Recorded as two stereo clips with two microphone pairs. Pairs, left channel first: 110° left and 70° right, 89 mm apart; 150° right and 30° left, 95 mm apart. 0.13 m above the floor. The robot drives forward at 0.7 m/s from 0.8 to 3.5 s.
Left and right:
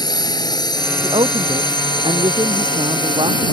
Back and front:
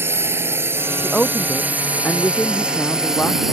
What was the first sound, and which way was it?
A drone, 90° left.